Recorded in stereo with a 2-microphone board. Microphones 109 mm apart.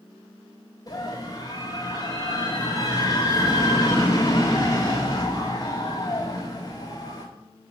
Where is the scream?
40° left (ahead or behind), 1.7 m.